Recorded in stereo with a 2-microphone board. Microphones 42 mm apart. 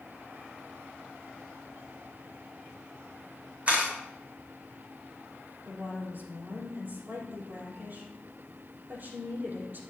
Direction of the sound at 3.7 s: 30° right (ahead or behind).